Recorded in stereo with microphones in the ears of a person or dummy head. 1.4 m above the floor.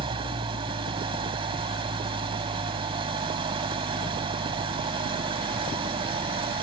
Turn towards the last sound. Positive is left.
turn(degrees=-30)  # may be behind; listen again after turning